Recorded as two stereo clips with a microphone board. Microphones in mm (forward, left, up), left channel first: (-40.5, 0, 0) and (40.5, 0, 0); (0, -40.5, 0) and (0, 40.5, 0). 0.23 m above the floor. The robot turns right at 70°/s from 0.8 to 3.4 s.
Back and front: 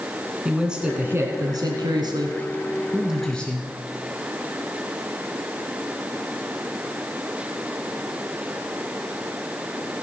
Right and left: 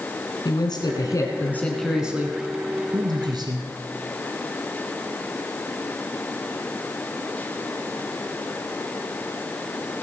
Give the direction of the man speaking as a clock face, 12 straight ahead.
3 o'clock.